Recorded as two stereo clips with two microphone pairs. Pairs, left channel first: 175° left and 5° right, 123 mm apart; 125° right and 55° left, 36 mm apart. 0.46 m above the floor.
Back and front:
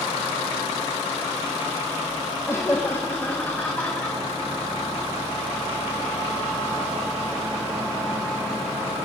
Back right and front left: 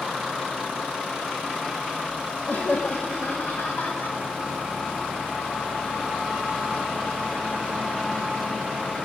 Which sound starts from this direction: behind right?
Laughter, at 2.5 s.